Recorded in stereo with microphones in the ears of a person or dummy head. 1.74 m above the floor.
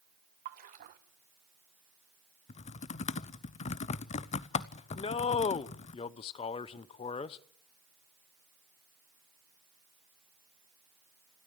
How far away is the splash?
About 1.6 m.